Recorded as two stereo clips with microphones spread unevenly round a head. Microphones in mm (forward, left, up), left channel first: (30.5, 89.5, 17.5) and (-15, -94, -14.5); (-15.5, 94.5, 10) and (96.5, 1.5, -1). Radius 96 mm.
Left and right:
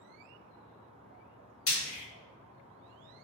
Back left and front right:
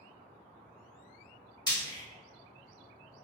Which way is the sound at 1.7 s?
80° left.